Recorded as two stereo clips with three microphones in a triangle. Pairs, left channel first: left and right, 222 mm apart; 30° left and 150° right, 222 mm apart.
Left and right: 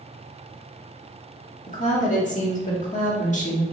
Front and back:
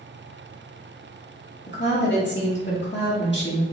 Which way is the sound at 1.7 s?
45° left.